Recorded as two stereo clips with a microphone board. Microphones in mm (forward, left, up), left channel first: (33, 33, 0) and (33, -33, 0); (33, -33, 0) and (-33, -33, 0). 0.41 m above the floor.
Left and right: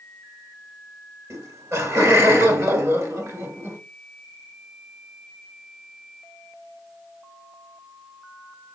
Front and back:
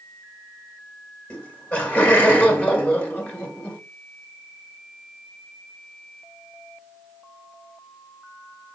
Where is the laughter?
65° right, 1.7 m.